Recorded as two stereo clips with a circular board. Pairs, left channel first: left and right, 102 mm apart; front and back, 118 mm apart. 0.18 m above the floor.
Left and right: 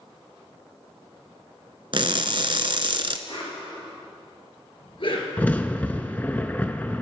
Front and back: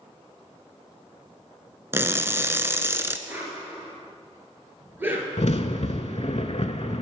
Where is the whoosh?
110° left, 1.9 m.